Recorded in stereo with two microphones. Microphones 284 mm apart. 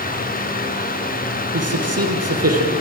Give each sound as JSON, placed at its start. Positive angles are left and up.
{"t": 1.5, "sound": "a man speaking", "side_deg": -60, "distance_m": 3.5}